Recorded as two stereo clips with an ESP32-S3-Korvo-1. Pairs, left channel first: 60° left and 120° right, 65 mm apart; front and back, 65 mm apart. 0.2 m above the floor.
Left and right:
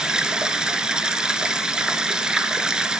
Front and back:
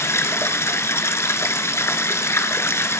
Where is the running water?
45° right, 1.5 m.